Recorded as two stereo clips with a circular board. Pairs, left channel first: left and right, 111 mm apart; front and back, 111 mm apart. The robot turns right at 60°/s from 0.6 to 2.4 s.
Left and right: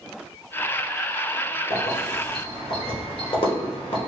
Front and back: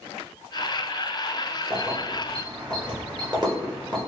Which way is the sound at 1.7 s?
90° left.